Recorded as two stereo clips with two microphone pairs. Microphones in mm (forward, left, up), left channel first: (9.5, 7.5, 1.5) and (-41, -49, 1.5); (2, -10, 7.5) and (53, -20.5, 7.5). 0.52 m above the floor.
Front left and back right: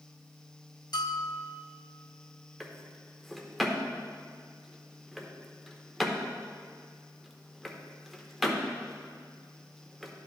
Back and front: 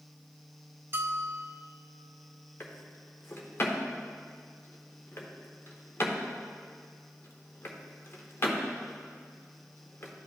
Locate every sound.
0.9 s a bell: 30° left, 0.6 m
2.6 s a drawer: 140° left, 0.8 m